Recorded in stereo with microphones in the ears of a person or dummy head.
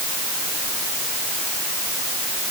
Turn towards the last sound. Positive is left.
No sound to turn to.